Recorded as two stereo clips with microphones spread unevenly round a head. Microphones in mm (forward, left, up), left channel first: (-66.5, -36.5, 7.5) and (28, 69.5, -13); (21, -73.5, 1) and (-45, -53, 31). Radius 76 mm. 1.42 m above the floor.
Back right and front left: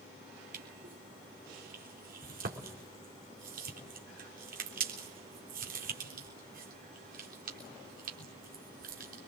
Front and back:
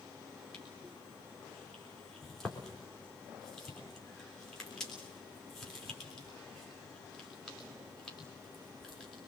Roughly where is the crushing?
Left.